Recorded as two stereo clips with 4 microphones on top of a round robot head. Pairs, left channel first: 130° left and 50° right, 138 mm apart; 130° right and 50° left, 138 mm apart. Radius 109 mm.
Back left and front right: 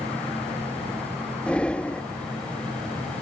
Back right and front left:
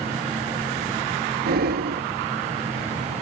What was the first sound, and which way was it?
Breathing, 50° left.